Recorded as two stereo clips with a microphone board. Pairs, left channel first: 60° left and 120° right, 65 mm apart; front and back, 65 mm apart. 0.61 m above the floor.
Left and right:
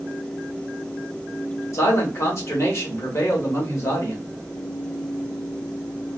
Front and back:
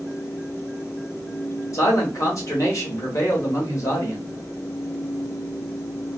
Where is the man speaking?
25° left, 1.5 m.